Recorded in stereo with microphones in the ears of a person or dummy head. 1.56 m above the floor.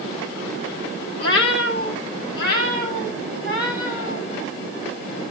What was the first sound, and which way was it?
A cat meowing, 65° left (ahead or behind).